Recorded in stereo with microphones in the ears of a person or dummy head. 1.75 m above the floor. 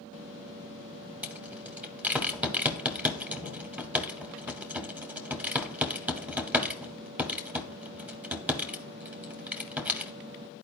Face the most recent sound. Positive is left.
turn(degrees=-10)  # may be behind; listen again after turning